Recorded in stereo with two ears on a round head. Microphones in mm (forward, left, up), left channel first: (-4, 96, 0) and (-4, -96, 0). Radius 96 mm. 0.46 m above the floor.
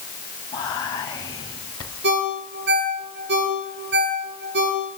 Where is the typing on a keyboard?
No typing on a keyboard in this recording.